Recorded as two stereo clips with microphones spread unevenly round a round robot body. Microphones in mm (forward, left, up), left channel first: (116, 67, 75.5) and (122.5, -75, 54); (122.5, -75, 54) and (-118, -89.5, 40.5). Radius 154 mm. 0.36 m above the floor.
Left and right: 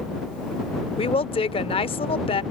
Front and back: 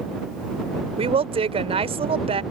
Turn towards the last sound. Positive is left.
turn(degrees=135)